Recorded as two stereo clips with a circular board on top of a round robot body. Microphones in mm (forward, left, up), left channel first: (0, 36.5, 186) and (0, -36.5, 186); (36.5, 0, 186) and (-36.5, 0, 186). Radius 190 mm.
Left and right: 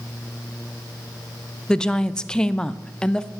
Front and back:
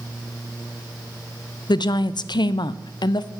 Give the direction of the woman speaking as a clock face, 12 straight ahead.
12 o'clock.